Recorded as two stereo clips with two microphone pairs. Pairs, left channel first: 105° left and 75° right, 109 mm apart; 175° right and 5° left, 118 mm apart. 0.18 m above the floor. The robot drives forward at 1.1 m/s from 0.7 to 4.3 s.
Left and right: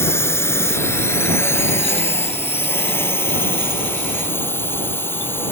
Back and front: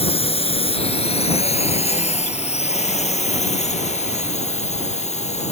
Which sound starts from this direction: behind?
A drone, at 0.0 s.